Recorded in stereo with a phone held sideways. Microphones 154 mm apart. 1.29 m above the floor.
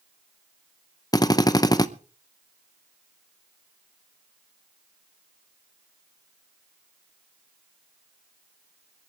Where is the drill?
25° left (ahead or behind), 0.7 m.